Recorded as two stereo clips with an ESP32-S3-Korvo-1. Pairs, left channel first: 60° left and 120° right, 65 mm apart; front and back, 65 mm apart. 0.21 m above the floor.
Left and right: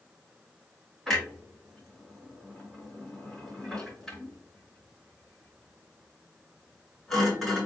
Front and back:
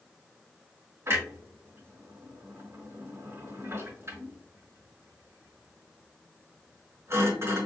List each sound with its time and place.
1.1 s a clunk: 140° left, 3.5 m